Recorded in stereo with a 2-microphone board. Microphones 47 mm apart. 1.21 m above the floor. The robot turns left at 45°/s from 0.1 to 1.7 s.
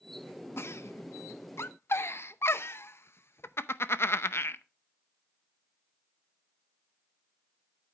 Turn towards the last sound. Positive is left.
turn(degrees=55)  # may be behind; listen again after turning